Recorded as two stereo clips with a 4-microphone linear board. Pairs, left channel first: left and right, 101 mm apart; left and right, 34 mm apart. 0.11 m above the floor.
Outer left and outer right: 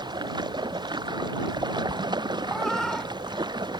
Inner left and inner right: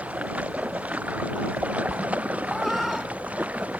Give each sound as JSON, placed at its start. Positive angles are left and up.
{"t": 0.0, "sound": "running water", "side_deg": -45}
{"t": 2.5, "sound": "a cat meowing", "side_deg": 5}